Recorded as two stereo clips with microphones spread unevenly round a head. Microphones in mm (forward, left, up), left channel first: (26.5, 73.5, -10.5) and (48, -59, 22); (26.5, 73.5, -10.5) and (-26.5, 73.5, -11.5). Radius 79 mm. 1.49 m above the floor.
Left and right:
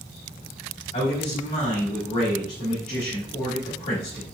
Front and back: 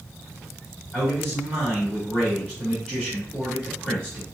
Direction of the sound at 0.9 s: 80° left.